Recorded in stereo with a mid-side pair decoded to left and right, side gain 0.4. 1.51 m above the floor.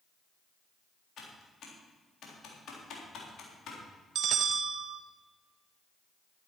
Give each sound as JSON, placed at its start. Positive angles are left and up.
{"t": 1.2, "sound": "typing on a keyboard", "azimuth_deg": 70, "distance_m": 3.5}
{"t": 4.2, "sound": "a bell", "azimuth_deg": -65, "distance_m": 0.9}